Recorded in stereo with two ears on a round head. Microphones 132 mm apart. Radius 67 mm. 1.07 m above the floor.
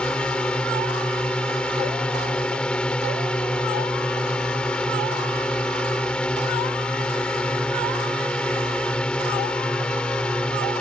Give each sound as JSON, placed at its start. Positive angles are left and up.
{"t": 0.0, "sound": "a drone", "side_deg": 5}